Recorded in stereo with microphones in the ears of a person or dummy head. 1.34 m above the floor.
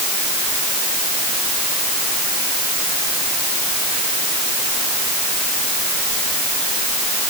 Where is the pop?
No pop in this recording.